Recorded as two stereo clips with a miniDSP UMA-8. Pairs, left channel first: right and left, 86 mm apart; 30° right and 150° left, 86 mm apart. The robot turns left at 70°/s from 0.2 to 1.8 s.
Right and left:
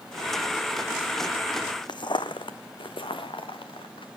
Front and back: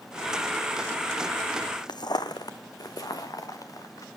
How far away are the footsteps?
About 0.7 m.